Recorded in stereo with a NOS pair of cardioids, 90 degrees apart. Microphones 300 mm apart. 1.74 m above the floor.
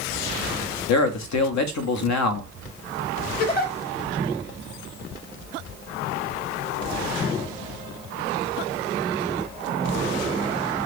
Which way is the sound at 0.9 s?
70° left.